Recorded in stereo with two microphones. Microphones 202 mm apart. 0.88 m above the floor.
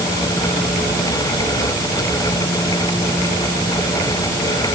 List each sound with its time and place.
Only background noise.